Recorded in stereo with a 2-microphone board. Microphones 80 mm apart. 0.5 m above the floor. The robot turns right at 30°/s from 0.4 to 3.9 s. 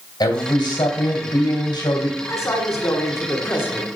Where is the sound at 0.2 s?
65° left, 2 m; by 2.2 s 120° left, 2 m.